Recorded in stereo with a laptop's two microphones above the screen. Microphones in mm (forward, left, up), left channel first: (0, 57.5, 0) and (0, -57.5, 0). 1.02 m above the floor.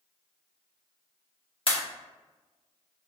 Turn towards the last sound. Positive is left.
turn(degrees=50)  # may be behind; listen again after turning